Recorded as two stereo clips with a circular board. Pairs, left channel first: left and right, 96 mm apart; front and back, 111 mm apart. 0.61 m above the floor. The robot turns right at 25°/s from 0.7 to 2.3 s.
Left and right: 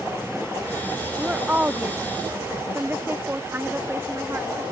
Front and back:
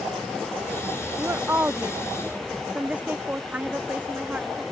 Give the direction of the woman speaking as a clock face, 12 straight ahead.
5 o'clock.